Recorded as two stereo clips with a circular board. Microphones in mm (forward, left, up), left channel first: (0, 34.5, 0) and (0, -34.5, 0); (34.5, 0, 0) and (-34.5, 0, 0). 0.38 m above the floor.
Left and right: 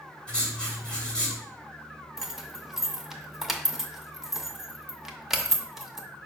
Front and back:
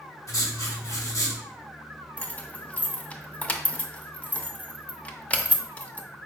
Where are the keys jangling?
20° right, 0.6 m.